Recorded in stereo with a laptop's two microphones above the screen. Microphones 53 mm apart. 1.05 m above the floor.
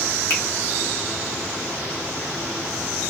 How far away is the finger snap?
About 1.7 m.